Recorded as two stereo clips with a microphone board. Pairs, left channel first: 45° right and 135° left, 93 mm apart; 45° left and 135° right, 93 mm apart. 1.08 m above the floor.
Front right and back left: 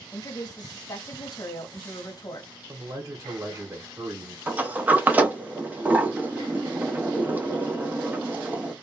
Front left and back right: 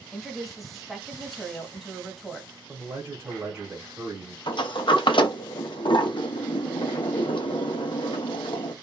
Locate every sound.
0.1 s a woman speaking: 45° right, 0.9 m
2.7 s a man speaking: 170° left, 1.2 m
4.5 s a sliding door: 65° left, 0.6 m